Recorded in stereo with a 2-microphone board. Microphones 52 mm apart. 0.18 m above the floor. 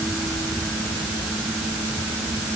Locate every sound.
Only background noise.